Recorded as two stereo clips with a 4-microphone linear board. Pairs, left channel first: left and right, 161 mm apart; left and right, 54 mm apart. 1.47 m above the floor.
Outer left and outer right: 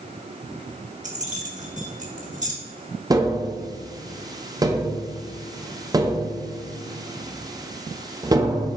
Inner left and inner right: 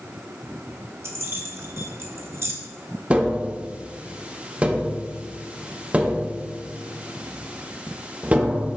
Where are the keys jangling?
50° right (ahead or behind), 1.4 m.